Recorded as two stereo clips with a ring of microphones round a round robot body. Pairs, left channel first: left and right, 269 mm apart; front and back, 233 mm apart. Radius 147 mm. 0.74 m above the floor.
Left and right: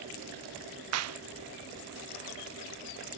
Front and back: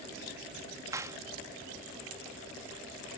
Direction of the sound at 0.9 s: 105° right.